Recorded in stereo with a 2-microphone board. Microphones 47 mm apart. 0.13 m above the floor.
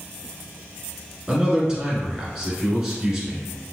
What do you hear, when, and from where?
1.3 s a man speaking: 10° right (ahead or behind), 1.4 m